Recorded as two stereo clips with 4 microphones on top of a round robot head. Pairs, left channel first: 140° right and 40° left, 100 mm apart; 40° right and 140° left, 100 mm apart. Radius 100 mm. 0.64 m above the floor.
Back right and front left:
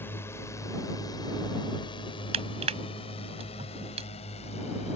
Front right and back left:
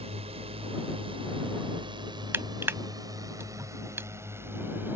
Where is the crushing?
70° left.